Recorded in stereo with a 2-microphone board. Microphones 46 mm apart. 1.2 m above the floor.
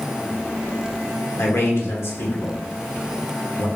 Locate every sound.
1.4 s a man speaking: 65° left (ahead or behind), 1.1 m